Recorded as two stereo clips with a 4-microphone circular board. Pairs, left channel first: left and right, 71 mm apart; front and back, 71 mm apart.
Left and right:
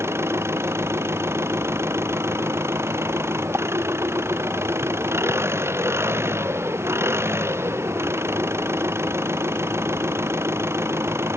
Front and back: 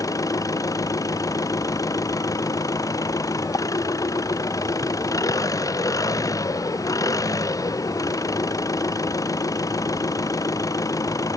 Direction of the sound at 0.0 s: 35° right.